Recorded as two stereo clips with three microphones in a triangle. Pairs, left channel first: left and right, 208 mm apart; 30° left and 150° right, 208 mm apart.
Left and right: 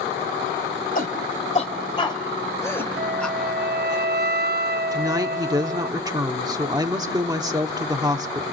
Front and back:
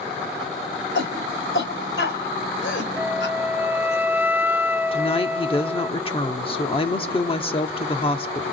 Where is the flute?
70° right, 0.5 m.